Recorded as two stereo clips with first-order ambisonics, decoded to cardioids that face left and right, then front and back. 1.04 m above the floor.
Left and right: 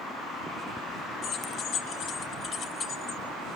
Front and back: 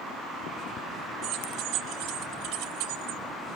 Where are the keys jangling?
135° left, 2.5 m; by 3.2 s 160° left, 1.6 m.